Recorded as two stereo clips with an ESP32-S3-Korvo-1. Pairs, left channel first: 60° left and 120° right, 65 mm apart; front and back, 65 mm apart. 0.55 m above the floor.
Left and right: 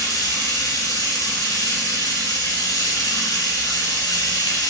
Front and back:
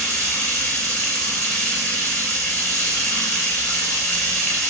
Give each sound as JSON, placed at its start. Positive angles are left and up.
{"t": 0.0, "sound": "running water", "azimuth_deg": 65, "distance_m": 2.5}